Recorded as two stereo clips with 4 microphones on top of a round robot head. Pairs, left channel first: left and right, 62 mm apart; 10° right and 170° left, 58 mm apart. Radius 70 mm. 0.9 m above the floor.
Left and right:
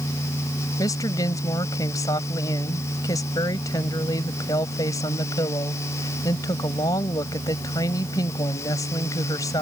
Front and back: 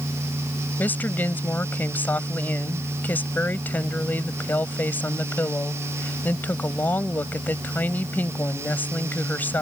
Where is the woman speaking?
50° left.